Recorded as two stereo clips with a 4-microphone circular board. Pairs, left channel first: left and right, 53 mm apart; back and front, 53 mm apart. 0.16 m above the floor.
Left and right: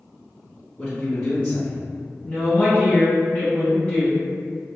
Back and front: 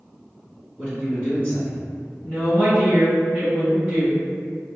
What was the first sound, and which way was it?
A man speaking, 40° left.